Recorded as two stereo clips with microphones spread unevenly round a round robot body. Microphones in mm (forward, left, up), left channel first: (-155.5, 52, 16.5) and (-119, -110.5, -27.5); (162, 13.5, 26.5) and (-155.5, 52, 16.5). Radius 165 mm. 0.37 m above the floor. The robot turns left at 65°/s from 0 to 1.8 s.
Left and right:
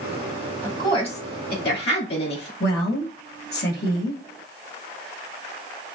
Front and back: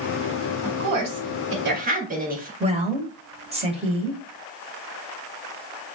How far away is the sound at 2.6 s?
About 1.5 m.